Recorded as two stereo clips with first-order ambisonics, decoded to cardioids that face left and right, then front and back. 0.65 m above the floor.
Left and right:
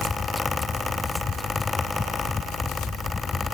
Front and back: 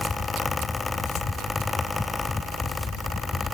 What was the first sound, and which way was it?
Only background noise.